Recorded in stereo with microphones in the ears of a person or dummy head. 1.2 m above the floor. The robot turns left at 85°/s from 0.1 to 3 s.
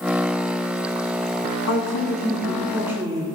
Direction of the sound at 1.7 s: 90° left.